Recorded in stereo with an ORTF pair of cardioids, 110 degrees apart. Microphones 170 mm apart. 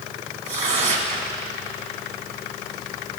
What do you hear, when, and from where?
0.5 s tearing paper: 40° right, 1.7 m